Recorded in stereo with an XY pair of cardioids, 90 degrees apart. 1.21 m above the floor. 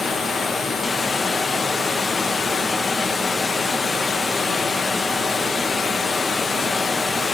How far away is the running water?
About 1.1 m.